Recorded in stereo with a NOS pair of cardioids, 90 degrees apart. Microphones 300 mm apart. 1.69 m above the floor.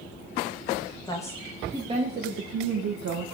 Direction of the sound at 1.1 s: 15° left.